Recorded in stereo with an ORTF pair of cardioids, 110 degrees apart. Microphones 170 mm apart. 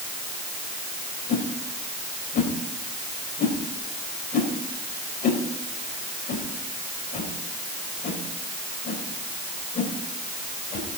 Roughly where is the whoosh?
Ahead left.